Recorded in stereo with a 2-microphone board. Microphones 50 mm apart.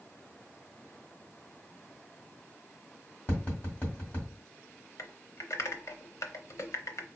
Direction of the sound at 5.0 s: 75° left (ahead or behind).